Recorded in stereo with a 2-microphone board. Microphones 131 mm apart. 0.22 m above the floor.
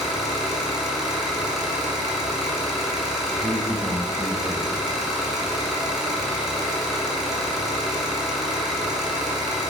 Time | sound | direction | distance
0.0 | an engine running | centre (ahead or behind) | 1.6 m
3.4 | a man speaking | 30° right (ahead or behind) | 1.3 m